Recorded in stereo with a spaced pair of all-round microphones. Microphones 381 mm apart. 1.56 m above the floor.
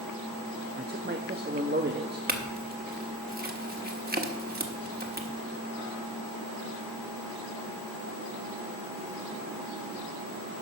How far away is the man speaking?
About 0.6 m.